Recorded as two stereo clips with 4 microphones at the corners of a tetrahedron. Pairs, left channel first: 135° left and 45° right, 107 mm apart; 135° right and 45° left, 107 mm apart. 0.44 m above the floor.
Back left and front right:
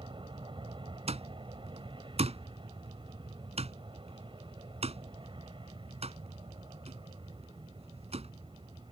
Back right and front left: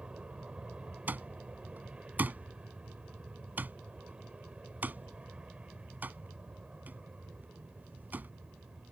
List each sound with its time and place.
0.0 s an aircraft: 35° right
1.1 s an alarm clock: 30° right